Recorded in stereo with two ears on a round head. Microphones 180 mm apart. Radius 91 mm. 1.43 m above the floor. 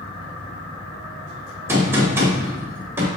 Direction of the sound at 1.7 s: 15° right (ahead or behind).